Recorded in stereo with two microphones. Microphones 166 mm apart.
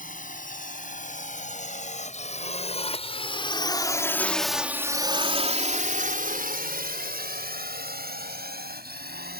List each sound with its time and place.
0.0 s a drone: 55° left (ahead or behind); by 9.4 s 70° right (ahead or behind)